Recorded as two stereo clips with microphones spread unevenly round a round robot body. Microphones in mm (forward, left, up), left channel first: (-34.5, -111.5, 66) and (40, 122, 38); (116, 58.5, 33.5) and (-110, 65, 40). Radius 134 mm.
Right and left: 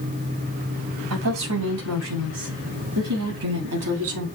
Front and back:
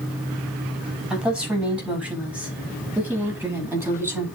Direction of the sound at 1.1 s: 90° left.